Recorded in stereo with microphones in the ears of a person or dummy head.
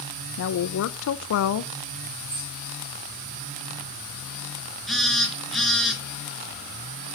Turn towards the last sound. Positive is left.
turn(degrees=5)  # may be behind; listen again after turning